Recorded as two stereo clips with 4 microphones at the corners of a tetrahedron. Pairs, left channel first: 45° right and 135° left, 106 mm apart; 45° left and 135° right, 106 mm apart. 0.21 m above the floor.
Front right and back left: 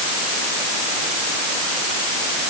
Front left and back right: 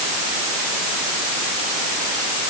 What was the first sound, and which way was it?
Only background noise.